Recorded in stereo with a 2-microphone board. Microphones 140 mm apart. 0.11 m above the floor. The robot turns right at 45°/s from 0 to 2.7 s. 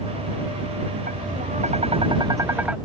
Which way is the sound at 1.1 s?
80° right.